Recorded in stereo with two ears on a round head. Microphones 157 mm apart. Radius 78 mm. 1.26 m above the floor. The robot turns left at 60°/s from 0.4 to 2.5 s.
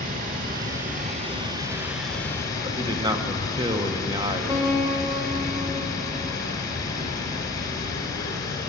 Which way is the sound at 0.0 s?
80° right.